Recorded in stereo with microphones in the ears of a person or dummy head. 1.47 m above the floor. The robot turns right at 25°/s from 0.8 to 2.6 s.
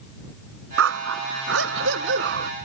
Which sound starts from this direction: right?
A dog barking, at 0.8 s.